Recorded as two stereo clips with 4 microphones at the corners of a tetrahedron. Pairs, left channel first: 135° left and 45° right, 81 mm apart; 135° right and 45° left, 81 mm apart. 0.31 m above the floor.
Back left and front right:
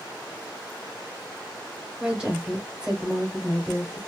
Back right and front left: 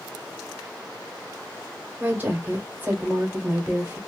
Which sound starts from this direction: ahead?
A woman speaking, at 2.0 s.